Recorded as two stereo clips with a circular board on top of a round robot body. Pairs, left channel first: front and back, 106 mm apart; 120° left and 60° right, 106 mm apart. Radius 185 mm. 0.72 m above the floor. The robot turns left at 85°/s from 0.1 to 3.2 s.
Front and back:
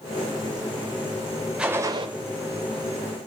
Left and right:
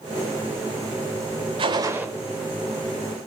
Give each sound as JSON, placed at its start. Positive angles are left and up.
{"t": 1.6, "sound": "a gunshot", "azimuth_deg": -100, "distance_m": 0.6}